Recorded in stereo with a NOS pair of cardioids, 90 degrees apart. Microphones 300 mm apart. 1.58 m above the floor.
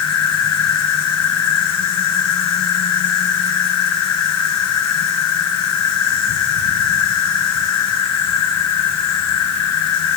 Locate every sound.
0.0 s an insect: 65° left, 2.5 m